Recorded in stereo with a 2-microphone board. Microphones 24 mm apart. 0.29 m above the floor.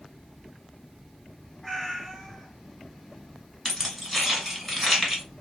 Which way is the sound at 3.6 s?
5° left (ahead or behind).